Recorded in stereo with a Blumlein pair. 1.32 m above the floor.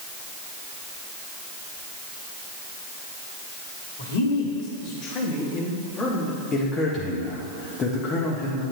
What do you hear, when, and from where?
4.0 s a man speaking: 65° left, 2.5 m; by 6.4 s 15° left, 3 m
6.5 s a man speaking: 20° left, 1.5 m